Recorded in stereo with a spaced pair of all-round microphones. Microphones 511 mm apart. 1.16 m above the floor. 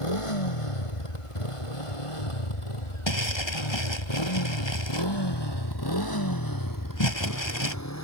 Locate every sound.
0.0 s a motorcycle: 85° left; by 8.0 s 30° left (ahead or behind)
3.1 s crumpling: 60° left (ahead or behind)